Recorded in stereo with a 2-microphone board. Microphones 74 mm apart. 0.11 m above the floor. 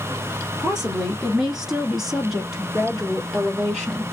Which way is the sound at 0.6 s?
5° right (ahead or behind).